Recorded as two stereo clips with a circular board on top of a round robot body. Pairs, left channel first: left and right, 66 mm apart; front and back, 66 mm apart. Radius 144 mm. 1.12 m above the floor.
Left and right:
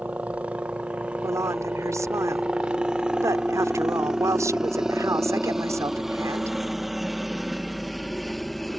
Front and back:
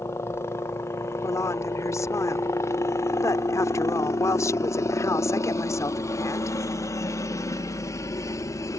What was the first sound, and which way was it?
A helicopter, 30° right.